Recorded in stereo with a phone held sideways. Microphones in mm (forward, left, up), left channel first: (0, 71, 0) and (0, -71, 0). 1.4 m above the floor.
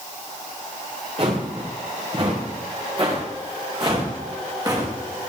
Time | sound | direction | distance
1.2 | footsteps | 45° right (ahead or behind) | 7.5 m